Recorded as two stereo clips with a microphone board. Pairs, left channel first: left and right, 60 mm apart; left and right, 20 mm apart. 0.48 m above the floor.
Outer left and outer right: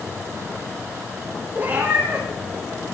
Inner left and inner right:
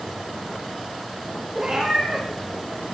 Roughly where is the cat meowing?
Right.